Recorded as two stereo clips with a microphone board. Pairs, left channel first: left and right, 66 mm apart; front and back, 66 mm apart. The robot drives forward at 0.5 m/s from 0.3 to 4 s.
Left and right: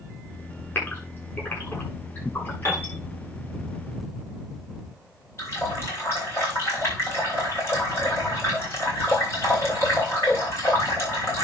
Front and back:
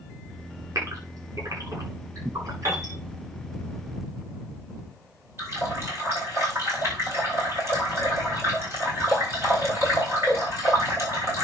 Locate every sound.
0.8 s a gasp: 145° left, 7.5 m; by 2.9 s 150° left, 8.5 m
2.6 s a piano: 140° left, 4.5 m
5.4 s a running tap: 140° left, 5.5 m